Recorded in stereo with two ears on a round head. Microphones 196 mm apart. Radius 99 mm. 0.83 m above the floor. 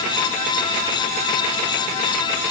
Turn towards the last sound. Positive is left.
No sound to turn to.